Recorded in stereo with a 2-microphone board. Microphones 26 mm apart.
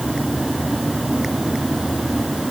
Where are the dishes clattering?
No dishes clattering in this recording.